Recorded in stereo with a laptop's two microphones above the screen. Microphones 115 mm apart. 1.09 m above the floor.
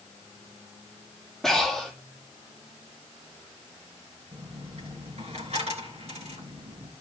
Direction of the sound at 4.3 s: 65° right (ahead or behind).